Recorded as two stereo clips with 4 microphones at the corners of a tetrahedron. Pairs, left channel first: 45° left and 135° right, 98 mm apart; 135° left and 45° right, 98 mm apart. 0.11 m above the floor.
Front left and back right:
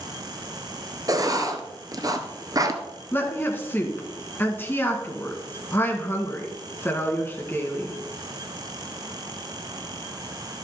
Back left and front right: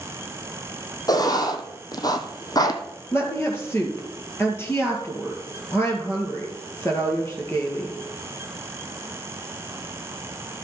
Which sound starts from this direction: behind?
Writing, at 1.1 s.